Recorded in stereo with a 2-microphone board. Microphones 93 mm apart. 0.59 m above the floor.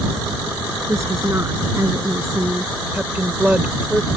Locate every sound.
0.9 s a woman speaking: 30° right (ahead or behind)
2.9 s a woman speaking: 15° right (ahead or behind)